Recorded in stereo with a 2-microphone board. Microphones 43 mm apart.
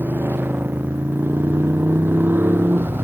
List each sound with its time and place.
0.0 s a motorcycle: 60° right (ahead or behind)